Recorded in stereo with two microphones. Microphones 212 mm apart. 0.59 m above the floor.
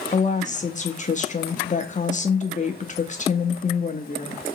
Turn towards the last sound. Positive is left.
turn(degrees=35)  # may be behind; listen again after turning